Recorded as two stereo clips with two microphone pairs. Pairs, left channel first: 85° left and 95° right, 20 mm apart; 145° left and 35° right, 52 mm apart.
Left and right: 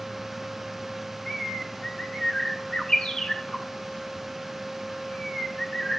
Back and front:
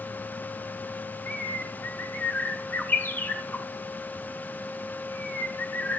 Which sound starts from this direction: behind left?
A bird, at 1.3 s.